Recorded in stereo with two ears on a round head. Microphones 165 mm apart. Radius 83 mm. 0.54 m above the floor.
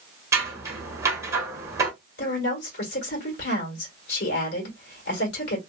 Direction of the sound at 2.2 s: 65° left (ahead or behind).